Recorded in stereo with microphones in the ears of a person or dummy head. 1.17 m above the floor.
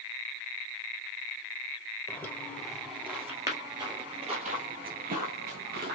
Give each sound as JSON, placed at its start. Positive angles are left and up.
{"t": 2.1, "sound": "footsteps", "side_deg": 10, "distance_m": 1.7}